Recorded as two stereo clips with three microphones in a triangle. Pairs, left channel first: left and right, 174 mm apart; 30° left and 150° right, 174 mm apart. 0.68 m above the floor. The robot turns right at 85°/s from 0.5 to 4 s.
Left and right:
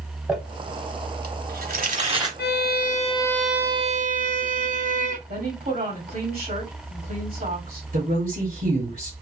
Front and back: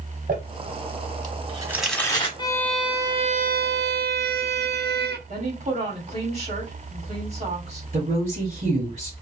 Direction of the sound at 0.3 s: 175° right.